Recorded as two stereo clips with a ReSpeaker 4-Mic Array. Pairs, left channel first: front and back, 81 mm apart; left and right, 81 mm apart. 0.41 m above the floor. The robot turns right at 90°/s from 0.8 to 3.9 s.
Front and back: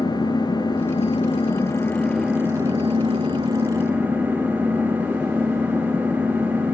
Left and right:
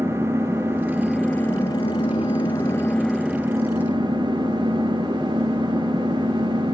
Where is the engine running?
30° right, 4 m; by 6.8 s 110° right, 4 m.